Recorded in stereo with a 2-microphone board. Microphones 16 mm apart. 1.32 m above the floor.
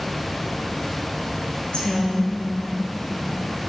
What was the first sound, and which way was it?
A woman speaking, 70° left (ahead or behind).